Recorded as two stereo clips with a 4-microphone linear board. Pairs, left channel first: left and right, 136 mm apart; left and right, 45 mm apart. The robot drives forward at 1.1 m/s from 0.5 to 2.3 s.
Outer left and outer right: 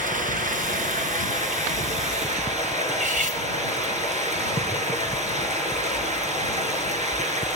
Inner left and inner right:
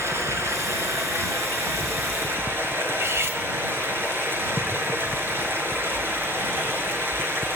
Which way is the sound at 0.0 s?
75° right (ahead or behind).